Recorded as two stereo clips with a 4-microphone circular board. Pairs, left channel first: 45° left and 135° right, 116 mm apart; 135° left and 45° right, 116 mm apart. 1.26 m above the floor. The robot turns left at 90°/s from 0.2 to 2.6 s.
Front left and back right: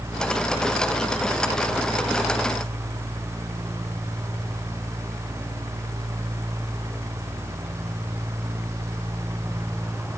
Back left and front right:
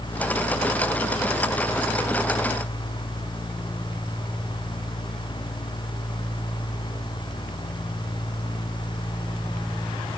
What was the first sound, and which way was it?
Only background noise.